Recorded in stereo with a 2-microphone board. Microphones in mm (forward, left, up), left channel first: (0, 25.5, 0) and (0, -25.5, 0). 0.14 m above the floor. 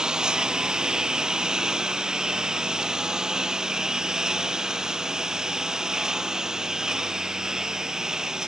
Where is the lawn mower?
15° right (ahead or behind); by 8.5 s 10° right (ahead or behind).